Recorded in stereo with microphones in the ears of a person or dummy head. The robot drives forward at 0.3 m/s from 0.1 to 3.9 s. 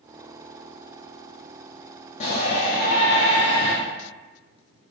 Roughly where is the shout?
Left.